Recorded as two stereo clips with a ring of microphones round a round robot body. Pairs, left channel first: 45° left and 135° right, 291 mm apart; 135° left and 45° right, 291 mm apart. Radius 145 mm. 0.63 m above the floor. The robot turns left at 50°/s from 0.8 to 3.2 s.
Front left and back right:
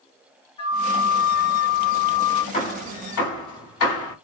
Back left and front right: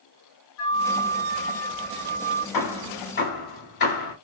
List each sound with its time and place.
0.6 s a flute: 115° left, 1.1 m; by 2.4 s 35° left, 1.1 m
2.5 s hammering: 115° left, 1.8 m; by 4.2 s 80° left, 1.8 m